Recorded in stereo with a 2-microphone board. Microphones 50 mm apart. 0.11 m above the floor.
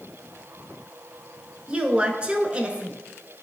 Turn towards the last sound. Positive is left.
turn(degrees=-20)  # may be behind; listen again after turning